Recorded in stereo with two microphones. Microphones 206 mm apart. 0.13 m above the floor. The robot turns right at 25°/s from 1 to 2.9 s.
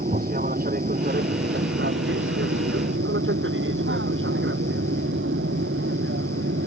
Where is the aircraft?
45° right (ahead or behind); by 6.7 s 75° right (ahead or behind).